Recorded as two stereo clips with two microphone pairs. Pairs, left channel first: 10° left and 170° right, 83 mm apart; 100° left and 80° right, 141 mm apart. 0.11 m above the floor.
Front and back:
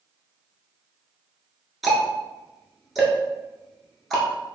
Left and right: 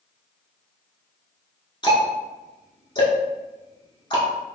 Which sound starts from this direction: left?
Ticking, at 1.8 s.